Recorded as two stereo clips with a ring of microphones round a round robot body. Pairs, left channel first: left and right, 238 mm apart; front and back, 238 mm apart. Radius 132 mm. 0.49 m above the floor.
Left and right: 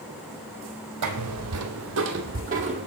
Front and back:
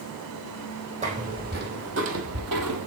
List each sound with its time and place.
1.0 s footsteps: 115° right, 1.4 m; by 2.9 s 160° right, 1.1 m